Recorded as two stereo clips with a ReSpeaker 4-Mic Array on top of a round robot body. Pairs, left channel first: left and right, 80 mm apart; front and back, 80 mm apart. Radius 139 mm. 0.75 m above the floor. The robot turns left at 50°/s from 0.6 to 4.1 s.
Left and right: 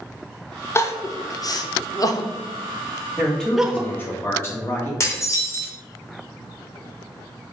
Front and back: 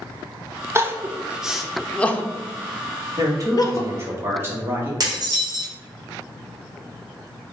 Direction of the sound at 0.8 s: 135° left.